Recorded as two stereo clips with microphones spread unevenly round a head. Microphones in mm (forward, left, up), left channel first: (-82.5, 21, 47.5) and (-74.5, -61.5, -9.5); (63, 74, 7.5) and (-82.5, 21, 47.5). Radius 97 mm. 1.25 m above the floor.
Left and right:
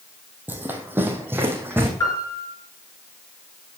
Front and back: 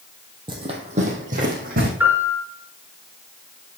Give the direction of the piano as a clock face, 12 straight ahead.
8 o'clock.